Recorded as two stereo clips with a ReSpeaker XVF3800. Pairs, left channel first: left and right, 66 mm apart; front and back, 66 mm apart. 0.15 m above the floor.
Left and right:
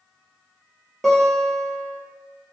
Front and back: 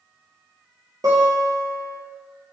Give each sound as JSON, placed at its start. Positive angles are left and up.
{"t": 1.0, "sound": "a guitar", "azimuth_deg": 175, "distance_m": 3.5}